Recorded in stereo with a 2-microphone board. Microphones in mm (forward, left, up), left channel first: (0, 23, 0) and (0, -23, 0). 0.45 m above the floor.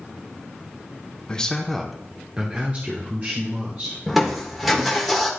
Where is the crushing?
Centre (ahead or behind), 1.3 m.